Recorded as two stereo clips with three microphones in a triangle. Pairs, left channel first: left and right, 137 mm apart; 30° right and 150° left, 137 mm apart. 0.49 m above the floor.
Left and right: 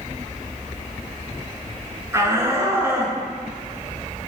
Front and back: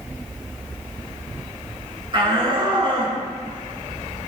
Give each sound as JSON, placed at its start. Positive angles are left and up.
{"t": 2.1, "sound": "a shout", "azimuth_deg": -160, "distance_m": 5.0}